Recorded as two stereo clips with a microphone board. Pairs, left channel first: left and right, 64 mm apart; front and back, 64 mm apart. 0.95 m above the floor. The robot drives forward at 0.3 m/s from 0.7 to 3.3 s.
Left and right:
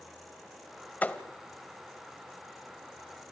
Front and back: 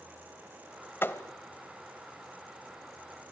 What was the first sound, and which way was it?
A thud, 35° left.